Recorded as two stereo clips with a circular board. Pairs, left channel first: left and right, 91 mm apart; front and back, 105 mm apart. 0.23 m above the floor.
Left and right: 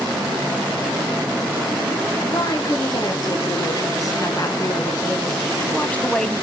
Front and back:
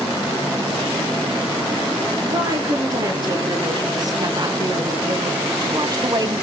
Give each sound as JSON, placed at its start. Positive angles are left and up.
{"t": 2.3, "sound": "a woman speaking", "azimuth_deg": 130, "distance_m": 3.5}